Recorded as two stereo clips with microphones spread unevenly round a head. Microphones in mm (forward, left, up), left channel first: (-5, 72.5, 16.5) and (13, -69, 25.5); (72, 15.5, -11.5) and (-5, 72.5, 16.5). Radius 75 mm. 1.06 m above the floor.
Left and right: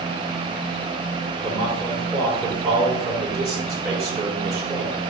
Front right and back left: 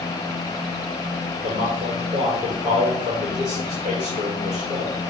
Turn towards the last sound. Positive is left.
turn(degrees=-160)